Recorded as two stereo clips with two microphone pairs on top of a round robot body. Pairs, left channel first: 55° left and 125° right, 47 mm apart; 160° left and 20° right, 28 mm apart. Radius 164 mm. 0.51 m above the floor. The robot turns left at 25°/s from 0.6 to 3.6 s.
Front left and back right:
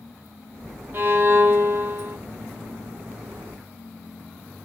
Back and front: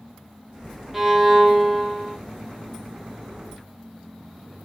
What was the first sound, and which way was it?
A violin, 100° right.